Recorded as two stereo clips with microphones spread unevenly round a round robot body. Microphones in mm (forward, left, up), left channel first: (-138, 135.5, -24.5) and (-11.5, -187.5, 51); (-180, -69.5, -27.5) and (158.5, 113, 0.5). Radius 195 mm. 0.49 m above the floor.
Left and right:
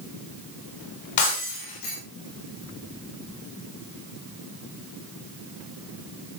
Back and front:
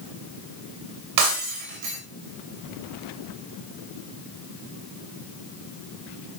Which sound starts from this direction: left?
Breaking glass, at 1.2 s.